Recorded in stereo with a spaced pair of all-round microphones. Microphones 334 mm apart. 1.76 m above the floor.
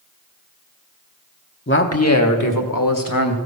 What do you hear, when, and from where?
1.7 s a man speaking: 30° left (ahead or behind), 1.2 m; by 3.4 s 70° left (ahead or behind), 2.0 m